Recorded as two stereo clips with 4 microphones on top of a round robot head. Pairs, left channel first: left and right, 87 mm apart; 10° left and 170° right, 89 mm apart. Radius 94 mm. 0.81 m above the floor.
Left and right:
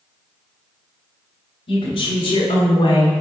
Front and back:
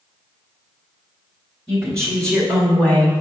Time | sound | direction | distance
1.7 | a woman speaking | 95° left | 2 m